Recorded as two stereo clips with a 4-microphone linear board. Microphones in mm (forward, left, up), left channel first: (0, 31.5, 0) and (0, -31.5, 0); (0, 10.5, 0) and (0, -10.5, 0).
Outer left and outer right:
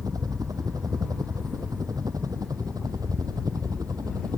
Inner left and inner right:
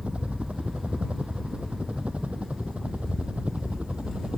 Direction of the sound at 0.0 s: 80° right.